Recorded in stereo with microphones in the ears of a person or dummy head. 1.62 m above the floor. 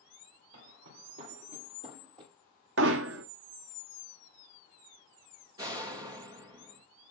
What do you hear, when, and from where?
0.5 s footsteps: 60° right (ahead or behind), 3 m; by 2.3 s 25° right (ahead or behind), 3 m
2.8 s hammering: 75° right (ahead or behind), 0.8 m
5.6 s a door slam: 25° right (ahead or behind), 0.9 m